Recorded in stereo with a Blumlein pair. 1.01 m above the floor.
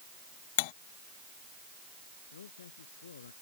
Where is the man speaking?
65° left.